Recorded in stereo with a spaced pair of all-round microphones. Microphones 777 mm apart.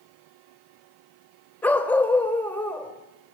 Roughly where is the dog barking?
Centre.